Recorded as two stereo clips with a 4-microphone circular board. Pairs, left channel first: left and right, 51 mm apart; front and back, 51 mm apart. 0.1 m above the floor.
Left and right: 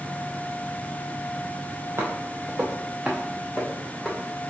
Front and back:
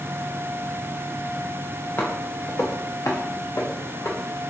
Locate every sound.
2.0 s footsteps: 50° right, 1.0 m; by 4.5 s 20° left, 1.4 m